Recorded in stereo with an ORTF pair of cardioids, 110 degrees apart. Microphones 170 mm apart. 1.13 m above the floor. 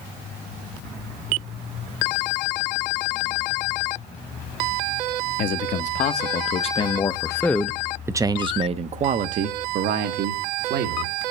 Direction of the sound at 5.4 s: 55° left.